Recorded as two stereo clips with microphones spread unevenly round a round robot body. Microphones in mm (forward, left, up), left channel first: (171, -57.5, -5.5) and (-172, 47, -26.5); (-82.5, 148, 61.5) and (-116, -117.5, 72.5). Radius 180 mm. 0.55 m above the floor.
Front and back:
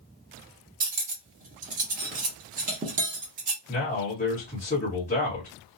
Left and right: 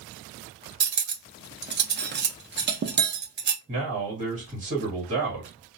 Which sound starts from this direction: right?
A man speaking, at 3.7 s.